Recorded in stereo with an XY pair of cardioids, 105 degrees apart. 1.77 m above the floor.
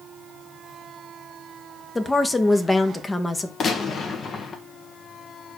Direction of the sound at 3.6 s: 55° left.